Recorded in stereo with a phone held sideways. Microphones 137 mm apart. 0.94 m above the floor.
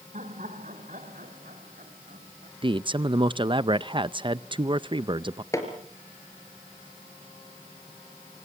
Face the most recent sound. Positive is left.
turn(degrees=20)  # may be behind; listen again after turning